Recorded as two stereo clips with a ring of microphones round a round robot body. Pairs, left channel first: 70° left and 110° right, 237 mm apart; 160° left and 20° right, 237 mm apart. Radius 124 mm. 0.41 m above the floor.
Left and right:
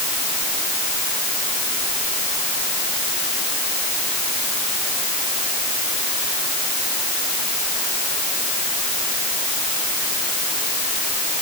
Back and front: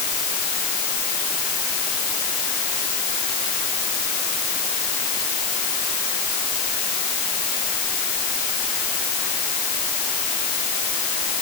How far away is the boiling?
No boiling in this recording.